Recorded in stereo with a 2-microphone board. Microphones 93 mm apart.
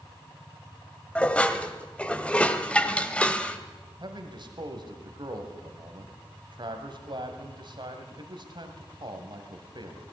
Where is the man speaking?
55° right (ahead or behind), 1.9 m.